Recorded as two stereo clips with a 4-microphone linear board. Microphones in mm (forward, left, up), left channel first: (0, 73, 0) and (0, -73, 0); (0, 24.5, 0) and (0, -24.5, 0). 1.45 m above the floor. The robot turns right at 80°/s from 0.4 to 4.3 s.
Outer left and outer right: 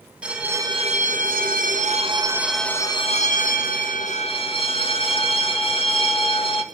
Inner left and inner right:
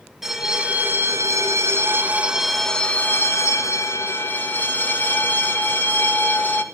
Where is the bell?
175° right, 1.8 m; by 6.6 s 140° left, 1.8 m.